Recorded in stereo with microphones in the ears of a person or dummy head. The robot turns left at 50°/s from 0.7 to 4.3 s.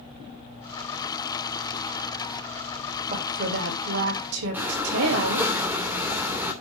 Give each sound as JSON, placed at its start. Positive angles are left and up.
{"t": 3.1, "sound": "a woman speaking", "azimuth_deg": -35, "distance_m": 2.5}
{"t": 4.5, "sound": "breathing", "side_deg": -10, "distance_m": 2.5}